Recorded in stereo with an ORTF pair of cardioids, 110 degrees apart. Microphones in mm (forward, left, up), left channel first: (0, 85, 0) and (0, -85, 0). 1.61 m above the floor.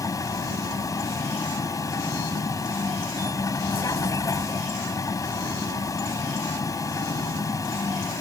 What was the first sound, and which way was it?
A vehicle, 20° left.